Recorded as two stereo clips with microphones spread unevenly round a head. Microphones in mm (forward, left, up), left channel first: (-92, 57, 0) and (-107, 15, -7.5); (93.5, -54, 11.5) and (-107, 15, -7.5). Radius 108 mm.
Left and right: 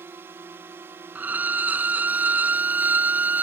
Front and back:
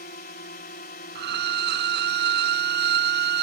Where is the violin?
160° right.